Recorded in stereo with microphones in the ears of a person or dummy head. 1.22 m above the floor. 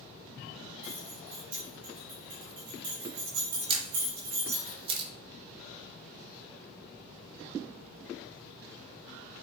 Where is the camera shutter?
30° right (ahead or behind), 1.4 m.